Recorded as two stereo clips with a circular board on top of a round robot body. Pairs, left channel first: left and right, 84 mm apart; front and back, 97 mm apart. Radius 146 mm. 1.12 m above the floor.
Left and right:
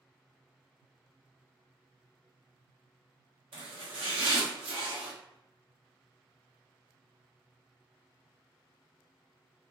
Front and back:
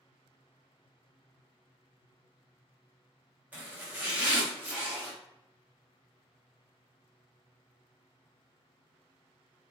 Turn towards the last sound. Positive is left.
turn(degrees=-105)